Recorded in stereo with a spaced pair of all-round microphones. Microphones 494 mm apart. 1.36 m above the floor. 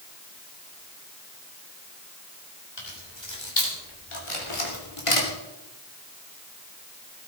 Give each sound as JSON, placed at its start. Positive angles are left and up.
{"t": 2.8, "sound": "keys jangling", "side_deg": 55, "distance_m": 4.0}
{"t": 4.3, "sound": "a camera shutter", "side_deg": 75, "distance_m": 4.0}